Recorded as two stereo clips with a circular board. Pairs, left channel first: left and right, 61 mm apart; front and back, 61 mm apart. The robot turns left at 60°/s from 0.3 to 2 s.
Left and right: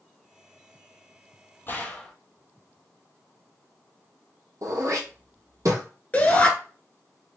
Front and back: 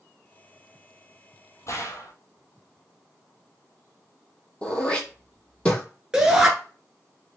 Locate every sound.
1.7 s a gunshot: 35° left, 0.8 m; by 2.1 s 15° left, 0.8 m
4.6 s throat clearing: 70° right, 1.0 m
6.1 s a shout: 110° left, 1.2 m